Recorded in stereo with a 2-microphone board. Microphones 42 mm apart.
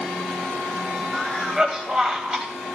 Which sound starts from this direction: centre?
A cough, at 1.1 s.